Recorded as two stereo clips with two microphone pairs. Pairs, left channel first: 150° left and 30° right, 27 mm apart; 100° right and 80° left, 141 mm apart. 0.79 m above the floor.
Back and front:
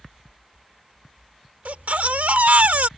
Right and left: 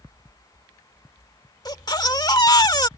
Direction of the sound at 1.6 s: 40° right.